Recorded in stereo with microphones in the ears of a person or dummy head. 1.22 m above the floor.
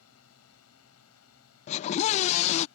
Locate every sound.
0.0 s a drone: 80° left
1.7 s a scream: 30° left (ahead or behind)